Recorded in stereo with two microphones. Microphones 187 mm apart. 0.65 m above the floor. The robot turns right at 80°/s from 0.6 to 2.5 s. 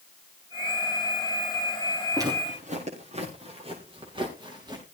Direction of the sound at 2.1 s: 15° right (ahead or behind).